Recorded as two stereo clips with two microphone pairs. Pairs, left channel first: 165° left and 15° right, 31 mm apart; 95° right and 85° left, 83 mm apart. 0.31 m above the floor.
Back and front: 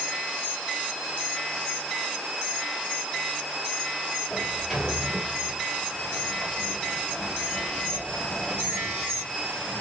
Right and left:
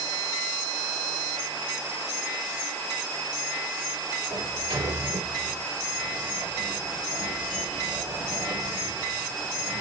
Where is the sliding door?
70° left, 2 m.